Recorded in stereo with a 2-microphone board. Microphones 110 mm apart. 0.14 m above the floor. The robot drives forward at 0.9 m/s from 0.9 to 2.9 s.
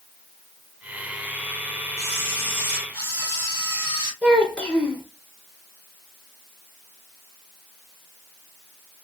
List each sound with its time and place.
2.0 s a camera shutter: 20° left (ahead or behind), 3.5 m; by 4.1 s 15° left (ahead or behind), 4 m
4.2 s a child speaking: 10° left (ahead or behind), 1.9 m